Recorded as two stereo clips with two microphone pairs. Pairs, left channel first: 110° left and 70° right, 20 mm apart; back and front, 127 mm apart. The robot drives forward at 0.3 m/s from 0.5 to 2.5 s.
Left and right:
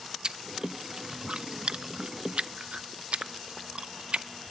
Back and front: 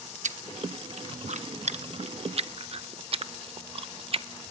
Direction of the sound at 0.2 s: 15° right.